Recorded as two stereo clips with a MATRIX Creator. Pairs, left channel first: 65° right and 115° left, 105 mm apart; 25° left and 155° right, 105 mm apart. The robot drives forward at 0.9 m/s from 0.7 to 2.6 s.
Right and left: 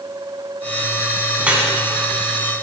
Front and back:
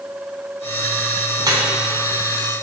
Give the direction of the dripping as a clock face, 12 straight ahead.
6 o'clock.